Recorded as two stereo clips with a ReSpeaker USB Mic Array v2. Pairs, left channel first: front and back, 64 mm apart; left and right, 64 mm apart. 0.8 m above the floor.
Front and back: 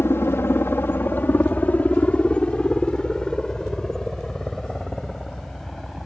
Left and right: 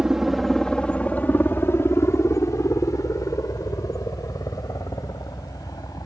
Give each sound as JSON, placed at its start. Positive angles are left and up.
{"t": 0.0, "sound": "a helicopter", "azimuth_deg": -15}